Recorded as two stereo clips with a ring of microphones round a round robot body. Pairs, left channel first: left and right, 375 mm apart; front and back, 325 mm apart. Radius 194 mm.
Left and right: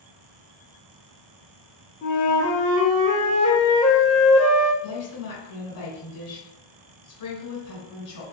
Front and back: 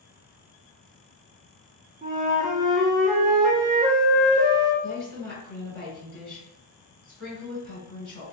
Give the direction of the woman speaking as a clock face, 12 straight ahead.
10 o'clock.